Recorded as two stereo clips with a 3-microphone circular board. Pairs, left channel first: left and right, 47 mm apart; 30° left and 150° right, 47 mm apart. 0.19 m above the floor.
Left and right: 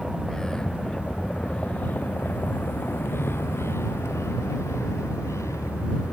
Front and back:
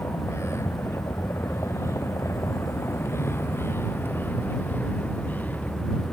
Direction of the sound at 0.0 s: 5° left.